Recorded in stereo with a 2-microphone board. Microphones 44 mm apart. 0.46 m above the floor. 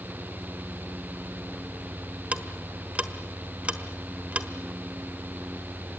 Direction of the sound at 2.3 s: 30° right (ahead or behind).